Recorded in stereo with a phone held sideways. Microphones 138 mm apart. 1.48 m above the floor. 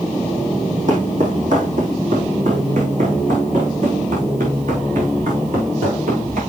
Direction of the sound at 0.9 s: 65° right (ahead or behind).